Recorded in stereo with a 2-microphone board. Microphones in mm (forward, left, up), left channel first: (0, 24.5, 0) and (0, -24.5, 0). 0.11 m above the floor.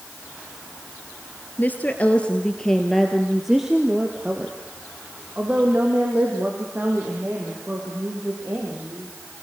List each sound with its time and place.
1.6 s a woman speaking: 40° left (ahead or behind), 1.7 m; by 9.1 s 40° right (ahead or behind), 6 m